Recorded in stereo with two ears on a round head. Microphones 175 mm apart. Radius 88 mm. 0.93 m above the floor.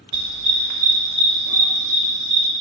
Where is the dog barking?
80° right, 1.6 m; by 2.5 s 35° right (ahead or behind), 2.5 m.